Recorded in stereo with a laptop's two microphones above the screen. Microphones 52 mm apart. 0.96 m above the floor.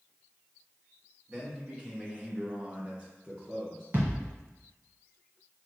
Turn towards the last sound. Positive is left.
turn(degrees=-45)  # may be behind; listen again after turning